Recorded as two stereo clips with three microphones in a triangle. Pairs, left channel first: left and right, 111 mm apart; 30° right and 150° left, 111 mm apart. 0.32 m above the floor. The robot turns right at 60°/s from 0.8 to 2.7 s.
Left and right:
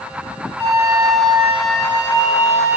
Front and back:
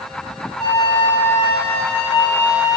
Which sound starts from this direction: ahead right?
A flute, at 0.6 s.